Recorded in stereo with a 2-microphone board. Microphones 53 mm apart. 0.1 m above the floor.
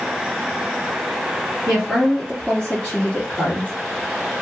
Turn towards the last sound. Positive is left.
turn(degrees=35)  # may be behind; listen again after turning